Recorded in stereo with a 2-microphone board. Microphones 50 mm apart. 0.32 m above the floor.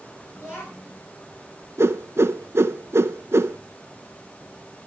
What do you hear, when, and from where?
0.3 s a child speaking: 45° left (ahead or behind), 2.5 m
1.8 s a whoosh: 65° right (ahead or behind), 0.5 m